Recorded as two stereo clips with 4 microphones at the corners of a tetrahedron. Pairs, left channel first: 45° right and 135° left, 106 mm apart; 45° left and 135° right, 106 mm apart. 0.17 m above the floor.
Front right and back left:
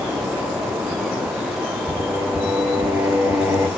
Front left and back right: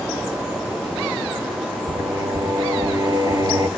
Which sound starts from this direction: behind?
Singing, at 1.9 s.